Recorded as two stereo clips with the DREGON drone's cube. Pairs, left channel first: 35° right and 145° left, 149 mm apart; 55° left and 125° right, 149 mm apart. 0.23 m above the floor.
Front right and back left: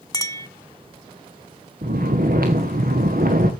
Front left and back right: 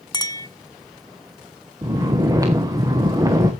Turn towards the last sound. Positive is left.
turn(degrees=165)